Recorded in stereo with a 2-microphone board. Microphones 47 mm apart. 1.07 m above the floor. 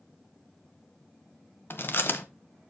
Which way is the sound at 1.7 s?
50° left (ahead or behind).